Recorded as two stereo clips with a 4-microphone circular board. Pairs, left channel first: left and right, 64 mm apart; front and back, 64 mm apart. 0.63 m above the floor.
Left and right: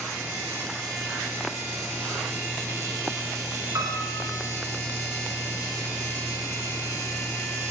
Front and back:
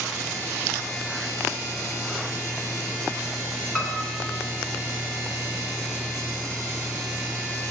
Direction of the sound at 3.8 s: 70° right.